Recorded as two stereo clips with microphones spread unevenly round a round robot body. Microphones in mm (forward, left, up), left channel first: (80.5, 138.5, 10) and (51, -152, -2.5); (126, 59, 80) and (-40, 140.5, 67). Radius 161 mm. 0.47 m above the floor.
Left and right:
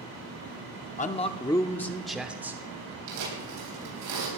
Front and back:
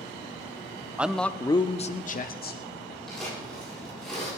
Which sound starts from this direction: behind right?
Tearing paper, at 3.1 s.